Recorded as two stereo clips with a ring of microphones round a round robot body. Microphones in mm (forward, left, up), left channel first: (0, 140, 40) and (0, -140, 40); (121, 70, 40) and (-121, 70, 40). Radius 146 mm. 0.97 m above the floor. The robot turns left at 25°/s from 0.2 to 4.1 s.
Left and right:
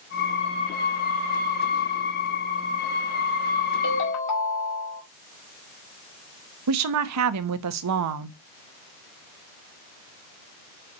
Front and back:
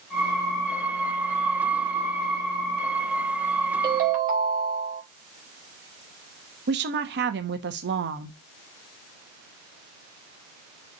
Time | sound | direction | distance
3.8 | a ringtone | 125° left | 2.5 m
6.7 | a woman speaking | 125° right | 0.9 m